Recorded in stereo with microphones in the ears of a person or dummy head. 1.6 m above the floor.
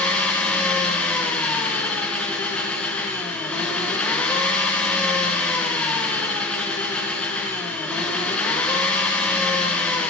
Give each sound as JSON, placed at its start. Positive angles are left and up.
{"t": 0.0, "sound": "an engine running", "side_deg": 5, "distance_m": 0.9}